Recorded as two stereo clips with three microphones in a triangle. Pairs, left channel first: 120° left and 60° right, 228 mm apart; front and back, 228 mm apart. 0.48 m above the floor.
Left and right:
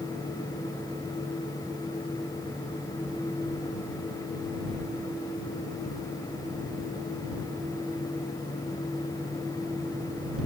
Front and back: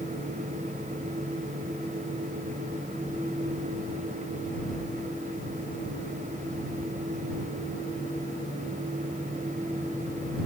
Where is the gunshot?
I don't hear a gunshot.